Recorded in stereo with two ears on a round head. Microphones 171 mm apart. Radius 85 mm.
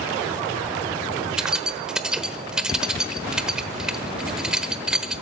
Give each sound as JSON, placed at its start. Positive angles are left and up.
{"t": 1.4, "sound": "keys jangling", "side_deg": -5, "distance_m": 1.1}